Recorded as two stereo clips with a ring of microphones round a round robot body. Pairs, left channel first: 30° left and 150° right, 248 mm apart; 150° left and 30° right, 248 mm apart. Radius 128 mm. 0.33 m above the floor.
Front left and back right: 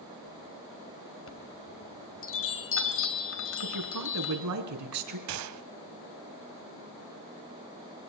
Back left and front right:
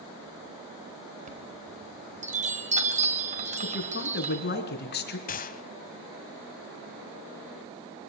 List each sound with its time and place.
1.3 s a chime: 25° left, 2.5 m
3.6 s a woman speaking: 160° right, 3.5 m
5.3 s a gunshot: 150° right, 0.9 m